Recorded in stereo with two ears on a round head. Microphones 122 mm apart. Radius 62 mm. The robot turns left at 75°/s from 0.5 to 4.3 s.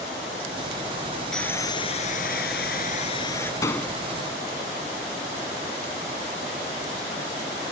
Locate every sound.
1.3 s sawing: 175° left; by 3.5 s 10° left
3.6 s a door slam: 25° left (ahead or behind); by 4.0 s 5° right (ahead or behind)